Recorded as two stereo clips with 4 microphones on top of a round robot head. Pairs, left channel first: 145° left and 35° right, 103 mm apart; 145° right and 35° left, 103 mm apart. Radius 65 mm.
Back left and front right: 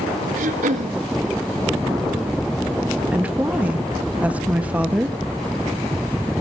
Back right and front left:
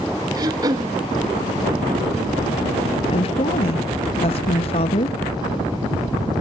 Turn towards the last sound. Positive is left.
turn(degrees=-115)